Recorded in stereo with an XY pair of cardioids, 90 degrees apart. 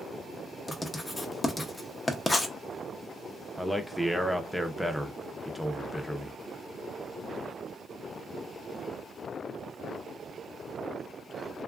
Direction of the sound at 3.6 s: 5° left.